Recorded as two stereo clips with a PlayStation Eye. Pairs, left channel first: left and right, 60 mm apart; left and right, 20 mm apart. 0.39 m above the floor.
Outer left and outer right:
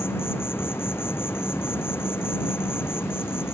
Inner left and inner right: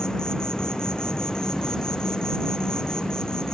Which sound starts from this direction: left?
An insect, at 0.0 s.